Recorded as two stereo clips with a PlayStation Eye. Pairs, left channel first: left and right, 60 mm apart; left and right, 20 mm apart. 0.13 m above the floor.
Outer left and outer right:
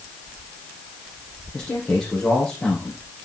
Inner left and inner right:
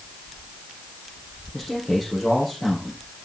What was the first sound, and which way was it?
A man speaking, 10° left (ahead or behind).